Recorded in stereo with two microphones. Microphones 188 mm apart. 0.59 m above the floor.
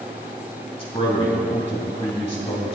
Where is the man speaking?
30° left (ahead or behind), 3.5 m.